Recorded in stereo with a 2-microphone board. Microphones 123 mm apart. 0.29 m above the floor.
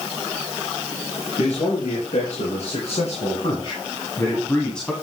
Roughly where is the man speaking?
Left.